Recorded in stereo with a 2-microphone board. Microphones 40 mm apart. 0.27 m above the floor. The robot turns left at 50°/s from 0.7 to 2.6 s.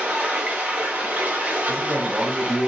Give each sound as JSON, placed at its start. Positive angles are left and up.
{"t": 0.0, "sound": "running water", "azimuth_deg": -55, "distance_m": 1.8}
{"t": 1.7, "sound": "a man speaking", "azimuth_deg": -95, "distance_m": 3.0}